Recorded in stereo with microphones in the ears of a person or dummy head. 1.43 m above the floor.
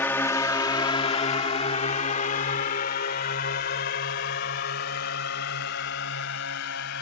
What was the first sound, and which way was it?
A drone, 10° left (ahead or behind).